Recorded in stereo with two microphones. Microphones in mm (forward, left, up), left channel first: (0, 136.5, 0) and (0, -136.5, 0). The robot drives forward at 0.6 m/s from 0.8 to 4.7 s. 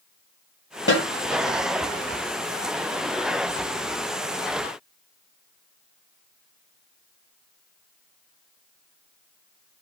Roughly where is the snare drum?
Left.